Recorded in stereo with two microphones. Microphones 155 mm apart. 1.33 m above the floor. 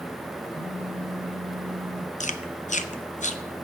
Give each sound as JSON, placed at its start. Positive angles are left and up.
{"t": 0.5, "sound": "a phone buzzing", "side_deg": 20, "distance_m": 4.0}
{"t": 2.2, "sound": "chewing", "side_deg": 50, "distance_m": 0.7}